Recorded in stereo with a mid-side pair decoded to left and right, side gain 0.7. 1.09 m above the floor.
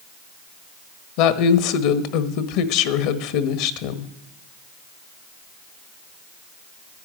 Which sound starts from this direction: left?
A woman speaking, at 1.2 s.